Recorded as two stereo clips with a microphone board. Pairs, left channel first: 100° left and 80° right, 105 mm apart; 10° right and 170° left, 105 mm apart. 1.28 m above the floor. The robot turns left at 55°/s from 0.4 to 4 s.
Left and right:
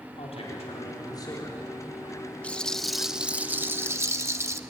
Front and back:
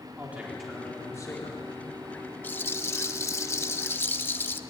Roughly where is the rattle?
Ahead left.